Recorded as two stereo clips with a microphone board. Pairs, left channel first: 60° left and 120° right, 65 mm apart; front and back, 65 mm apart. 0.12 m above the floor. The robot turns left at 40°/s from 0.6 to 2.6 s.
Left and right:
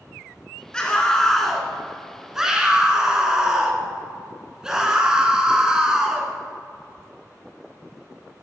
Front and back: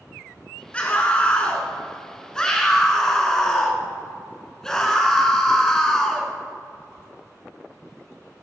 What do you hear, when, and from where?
0.7 s a scream: 10° left, 1.2 m; by 6.3 s 65° right, 1.2 m